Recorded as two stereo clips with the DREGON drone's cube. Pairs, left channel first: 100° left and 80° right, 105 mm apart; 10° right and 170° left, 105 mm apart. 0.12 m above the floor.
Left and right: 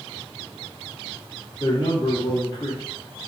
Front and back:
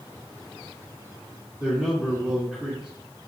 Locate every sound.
1.6 s a man speaking: 90° left, 2.5 m